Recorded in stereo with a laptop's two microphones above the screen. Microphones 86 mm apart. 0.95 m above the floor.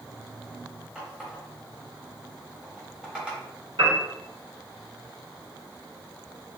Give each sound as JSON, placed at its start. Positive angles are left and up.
{"t": 0.9, "sound": "a running tap", "side_deg": -10, "distance_m": 0.9}
{"t": 3.8, "sound": "a piano", "side_deg": -75, "distance_m": 1.9}